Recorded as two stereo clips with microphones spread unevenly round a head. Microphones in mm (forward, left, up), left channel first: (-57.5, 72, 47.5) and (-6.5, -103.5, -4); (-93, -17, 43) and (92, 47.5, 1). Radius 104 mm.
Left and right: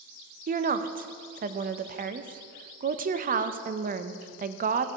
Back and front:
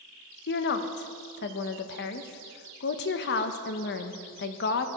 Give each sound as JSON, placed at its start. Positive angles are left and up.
{"t": 0.5, "sound": "a woman speaking", "azimuth_deg": -115, "distance_m": 0.6}